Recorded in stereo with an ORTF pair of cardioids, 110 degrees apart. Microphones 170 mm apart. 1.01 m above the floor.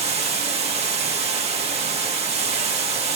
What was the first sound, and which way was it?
Running water, 40° right.